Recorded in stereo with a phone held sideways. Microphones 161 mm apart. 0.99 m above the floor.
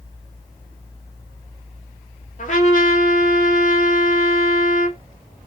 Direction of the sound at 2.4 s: 50° left (ahead or behind).